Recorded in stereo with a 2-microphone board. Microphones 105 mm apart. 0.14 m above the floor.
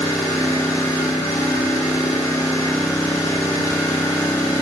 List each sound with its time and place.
0.0 s an engine running: 30° left (ahead or behind), 1.9 m